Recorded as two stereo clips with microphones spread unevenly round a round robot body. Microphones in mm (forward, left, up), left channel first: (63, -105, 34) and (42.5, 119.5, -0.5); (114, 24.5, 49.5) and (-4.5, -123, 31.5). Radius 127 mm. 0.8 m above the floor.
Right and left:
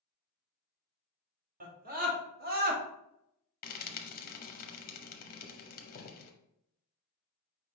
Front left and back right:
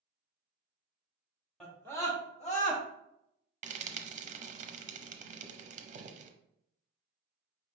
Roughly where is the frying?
Behind right.